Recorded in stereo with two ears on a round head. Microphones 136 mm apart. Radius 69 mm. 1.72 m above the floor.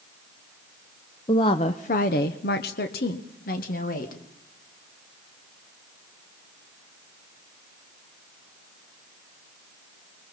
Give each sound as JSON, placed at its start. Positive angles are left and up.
{"t": 1.3, "sound": "a woman speaking", "side_deg": 25, "distance_m": 0.9}